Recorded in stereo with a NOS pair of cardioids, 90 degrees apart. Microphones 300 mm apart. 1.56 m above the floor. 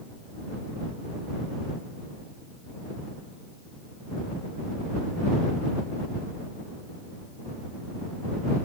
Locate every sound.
Only background noise.